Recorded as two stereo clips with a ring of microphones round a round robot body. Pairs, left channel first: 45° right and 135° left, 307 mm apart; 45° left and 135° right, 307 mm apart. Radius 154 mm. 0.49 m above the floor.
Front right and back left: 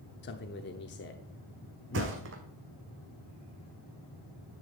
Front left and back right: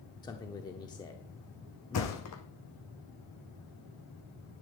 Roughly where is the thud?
Left.